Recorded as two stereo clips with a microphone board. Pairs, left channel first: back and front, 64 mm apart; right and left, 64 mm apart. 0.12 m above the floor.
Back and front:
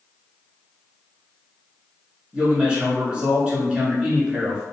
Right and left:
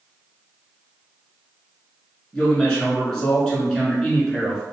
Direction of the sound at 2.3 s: 35° right.